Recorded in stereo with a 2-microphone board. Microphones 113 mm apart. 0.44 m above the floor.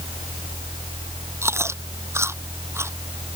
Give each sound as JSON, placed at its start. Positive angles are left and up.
{"t": 1.4, "sound": "chewing", "side_deg": -20}